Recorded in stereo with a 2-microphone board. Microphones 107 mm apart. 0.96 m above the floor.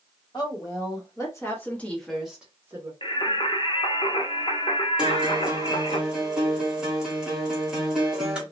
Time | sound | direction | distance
0.3 | a woman speaking | 45° left (ahead or behind) | 1.5 m
3.0 | singing | 50° left (ahead or behind) | 0.6 m
5.0 | a guitar | 10° right (ahead or behind) | 1.0 m